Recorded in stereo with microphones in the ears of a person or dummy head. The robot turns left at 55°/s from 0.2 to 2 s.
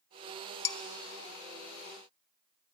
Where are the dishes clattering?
25° left (ahead or behind), 0.9 m; by 0.8 s 20° left (ahead or behind), 0.9 m.